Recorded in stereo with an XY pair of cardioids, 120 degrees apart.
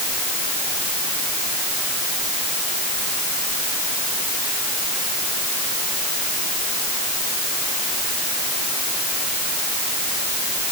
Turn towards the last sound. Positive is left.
No sound to turn to.